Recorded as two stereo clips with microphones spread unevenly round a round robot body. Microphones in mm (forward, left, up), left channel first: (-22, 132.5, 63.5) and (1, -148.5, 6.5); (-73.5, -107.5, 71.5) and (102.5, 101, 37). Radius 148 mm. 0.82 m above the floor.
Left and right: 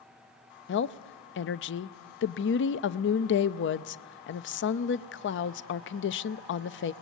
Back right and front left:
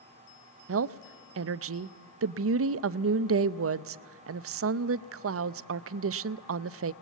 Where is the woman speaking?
45° left, 0.7 m.